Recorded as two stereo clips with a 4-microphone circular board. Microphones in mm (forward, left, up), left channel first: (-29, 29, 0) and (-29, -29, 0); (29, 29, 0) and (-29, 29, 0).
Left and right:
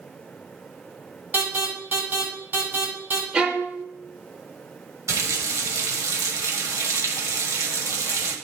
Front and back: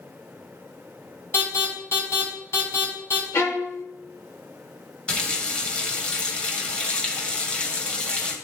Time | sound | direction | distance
1.3 | an alarm | 40° right | 4.5 m
3.3 | a violin | 25° right | 1.0 m
5.1 | a running tap | 70° right | 1.6 m